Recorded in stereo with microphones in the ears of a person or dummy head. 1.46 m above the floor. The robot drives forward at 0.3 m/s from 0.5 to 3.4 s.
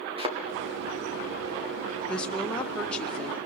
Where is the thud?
35° right (ahead or behind), 2.5 m.